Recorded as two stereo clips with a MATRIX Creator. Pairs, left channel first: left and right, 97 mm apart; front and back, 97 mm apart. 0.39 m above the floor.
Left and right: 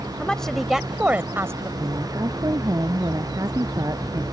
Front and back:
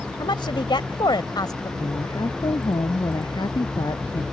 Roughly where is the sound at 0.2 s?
Ahead.